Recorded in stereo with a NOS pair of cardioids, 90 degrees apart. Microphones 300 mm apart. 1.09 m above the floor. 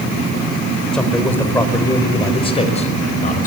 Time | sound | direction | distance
0.9 | a man speaking | straight ahead | 5 m